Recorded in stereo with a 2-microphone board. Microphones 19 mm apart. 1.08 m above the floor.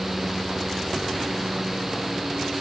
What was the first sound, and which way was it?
Only background noise.